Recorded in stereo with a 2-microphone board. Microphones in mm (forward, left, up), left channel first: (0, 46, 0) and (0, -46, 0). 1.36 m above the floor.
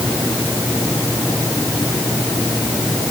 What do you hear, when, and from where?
Only background noise.